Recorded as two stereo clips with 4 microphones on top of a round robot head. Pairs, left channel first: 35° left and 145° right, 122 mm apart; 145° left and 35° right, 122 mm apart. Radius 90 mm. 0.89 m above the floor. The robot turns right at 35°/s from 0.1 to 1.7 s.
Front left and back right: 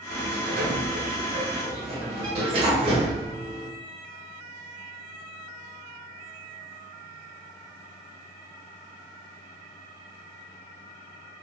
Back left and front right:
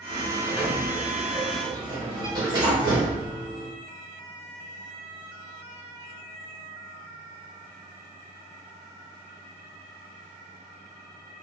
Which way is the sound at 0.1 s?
150° right.